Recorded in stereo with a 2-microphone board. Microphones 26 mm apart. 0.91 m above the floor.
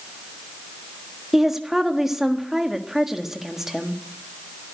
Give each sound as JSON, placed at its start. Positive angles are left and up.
{"t": 1.3, "sound": "a woman speaking", "side_deg": -20, "distance_m": 1.5}